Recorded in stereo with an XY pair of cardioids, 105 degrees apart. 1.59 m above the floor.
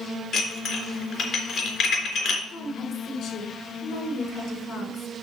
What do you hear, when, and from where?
0.3 s dishes clattering: 60° left, 3.5 m
2.5 s a woman speaking: 65° left, 5 m